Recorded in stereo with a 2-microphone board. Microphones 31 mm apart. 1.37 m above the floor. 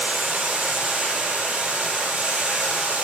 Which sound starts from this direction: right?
Running water, at 0.0 s.